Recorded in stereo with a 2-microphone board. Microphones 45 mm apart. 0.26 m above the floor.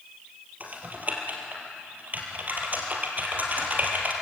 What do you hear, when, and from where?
0.6 s typing on a keyboard: 35° right (ahead or behind), 3.5 m